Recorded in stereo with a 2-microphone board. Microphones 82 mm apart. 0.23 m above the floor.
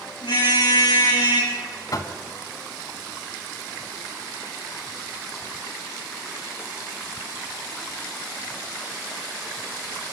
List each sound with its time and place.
0.2 s a car horn: 85° left, 7 m; by 1.5 s 70° left (ahead or behind), 8 m
1.9 s knocking: 50° left (ahead or behind), 1.2 m